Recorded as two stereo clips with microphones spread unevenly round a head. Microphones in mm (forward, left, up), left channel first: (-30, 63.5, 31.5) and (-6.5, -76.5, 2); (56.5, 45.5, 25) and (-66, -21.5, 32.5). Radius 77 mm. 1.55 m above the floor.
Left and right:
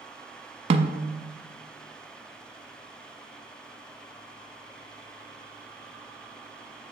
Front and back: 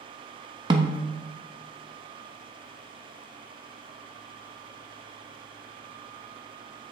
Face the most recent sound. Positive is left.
turn(degrees=-120)